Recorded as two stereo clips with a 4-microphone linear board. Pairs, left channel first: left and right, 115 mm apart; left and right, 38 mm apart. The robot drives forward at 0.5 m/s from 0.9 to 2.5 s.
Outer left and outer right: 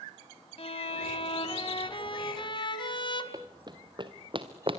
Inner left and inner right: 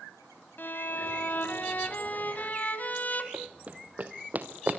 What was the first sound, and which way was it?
A violin, 55° left (ahead or behind).